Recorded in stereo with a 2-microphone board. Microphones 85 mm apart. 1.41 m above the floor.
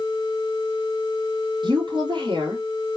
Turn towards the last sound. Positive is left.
turn(degrees=-70)  # may be behind; listen again after turning